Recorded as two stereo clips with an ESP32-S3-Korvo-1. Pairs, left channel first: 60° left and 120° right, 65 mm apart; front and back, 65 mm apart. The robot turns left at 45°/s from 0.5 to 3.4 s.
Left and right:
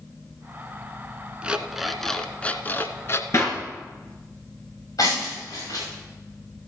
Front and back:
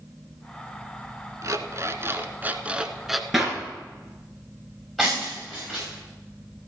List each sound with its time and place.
1.4 s an alarm clock: 170° left, 0.8 m; by 3.2 s 90° left, 0.8 m
3.3 s a clap: 95° left, 2 m; by 3.6 s 90° left, 2 m
5.0 s breaking glass: 85° left, 7 m